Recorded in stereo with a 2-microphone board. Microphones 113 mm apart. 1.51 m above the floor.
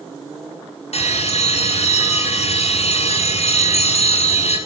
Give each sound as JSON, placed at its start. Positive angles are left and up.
{"t": 0.9, "sound": "a bell", "side_deg": 75, "distance_m": 6.5}